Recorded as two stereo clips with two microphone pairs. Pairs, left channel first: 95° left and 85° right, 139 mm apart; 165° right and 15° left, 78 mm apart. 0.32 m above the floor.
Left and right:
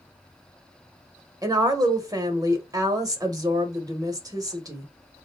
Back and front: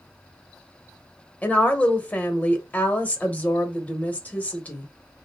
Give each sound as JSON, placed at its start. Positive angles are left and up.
{"t": 1.4, "sound": "a woman speaking", "azimuth_deg": -115, "distance_m": 1.0}